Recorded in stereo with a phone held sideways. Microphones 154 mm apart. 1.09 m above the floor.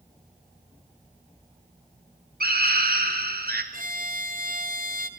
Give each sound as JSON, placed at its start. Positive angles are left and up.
{"t": 2.4, "sound": "a scream", "side_deg": -80, "distance_m": 4.0}
{"t": 3.7, "sound": "a violin", "side_deg": -65, "distance_m": 1.6}